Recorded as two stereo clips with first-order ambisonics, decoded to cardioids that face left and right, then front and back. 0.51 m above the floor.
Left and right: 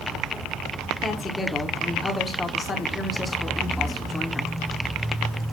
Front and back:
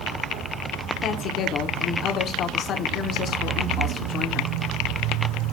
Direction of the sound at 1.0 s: 25° left.